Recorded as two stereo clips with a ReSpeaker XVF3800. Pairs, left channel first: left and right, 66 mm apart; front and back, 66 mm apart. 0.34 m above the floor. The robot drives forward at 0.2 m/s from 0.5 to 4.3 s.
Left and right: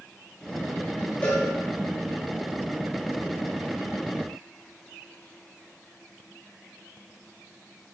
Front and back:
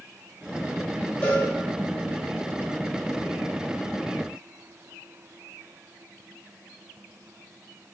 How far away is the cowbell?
About 1.6 m.